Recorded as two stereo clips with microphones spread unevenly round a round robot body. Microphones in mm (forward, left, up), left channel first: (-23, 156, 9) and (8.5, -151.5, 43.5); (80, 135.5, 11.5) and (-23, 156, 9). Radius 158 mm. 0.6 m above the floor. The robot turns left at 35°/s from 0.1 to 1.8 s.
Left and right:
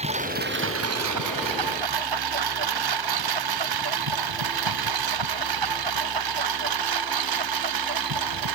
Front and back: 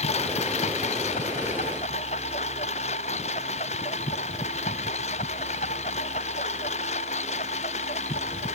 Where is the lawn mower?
15° right; by 8.6 s 65° right.